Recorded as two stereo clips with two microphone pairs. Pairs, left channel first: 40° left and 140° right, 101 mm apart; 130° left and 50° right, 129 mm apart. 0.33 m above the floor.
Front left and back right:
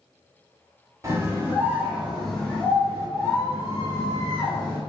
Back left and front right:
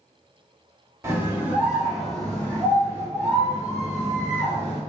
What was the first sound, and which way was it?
A scream, 105° right.